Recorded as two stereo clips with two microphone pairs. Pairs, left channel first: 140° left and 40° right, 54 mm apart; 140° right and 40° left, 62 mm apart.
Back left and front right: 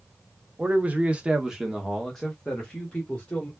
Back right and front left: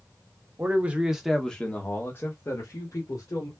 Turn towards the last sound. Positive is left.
turn(degrees=-150)